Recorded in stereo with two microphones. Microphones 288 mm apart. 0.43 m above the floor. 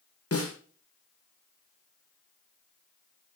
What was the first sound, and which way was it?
A snare drum, 60° left (ahead or behind).